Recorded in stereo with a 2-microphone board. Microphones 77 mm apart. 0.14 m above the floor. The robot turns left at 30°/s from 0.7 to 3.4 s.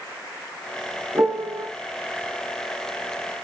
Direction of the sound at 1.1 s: 35° right (ahead or behind).